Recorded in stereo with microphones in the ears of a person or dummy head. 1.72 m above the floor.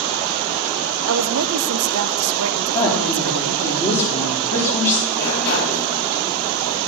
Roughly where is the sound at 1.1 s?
Right.